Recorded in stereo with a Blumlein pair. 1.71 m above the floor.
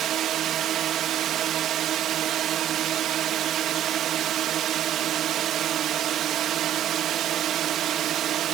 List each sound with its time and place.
0.0 s a drone: 30° right